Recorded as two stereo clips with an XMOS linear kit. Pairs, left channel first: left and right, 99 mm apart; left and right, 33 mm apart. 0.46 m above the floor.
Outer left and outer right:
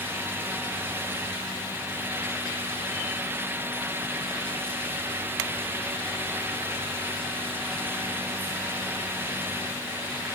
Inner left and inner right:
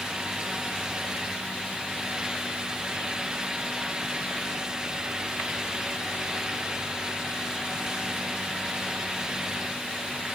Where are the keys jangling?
No keys jangling in this recording.